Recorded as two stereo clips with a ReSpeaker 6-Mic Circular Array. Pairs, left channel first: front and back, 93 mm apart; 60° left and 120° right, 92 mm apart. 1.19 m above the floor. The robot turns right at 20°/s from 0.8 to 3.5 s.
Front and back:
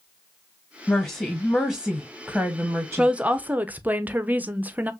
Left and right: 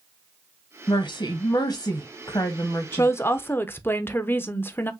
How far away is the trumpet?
No trumpet in this recording.